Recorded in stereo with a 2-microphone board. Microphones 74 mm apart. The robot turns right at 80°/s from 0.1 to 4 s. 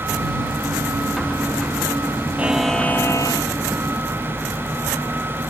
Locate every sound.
2.4 s a buzzer: 20° right; by 3.5 s 70° left